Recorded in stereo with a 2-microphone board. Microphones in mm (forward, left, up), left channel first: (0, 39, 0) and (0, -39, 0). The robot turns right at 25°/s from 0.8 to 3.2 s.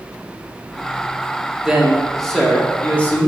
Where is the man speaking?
10° right, 1.7 m; by 3.3 s 30° left, 1.7 m.